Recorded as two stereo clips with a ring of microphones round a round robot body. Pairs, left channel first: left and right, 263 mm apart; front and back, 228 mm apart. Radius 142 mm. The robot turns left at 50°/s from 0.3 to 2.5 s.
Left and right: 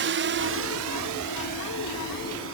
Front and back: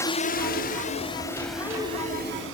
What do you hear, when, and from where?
0.0 s a drone: 75° right; by 2.5 s 135° right